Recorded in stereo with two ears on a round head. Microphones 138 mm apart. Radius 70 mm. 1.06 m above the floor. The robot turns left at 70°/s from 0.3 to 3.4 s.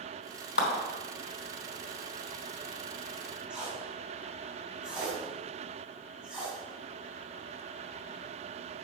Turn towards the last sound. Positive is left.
turn(degrees=-5)  # may be behind; listen again after turning